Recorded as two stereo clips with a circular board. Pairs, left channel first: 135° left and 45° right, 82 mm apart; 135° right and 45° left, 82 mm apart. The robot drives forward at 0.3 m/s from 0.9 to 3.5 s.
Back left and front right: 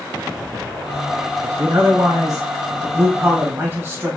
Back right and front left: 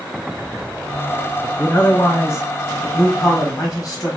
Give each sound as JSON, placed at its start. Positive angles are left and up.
{"t": 1.4, "sound": "a man speaking", "azimuth_deg": -65, "distance_m": 1.2}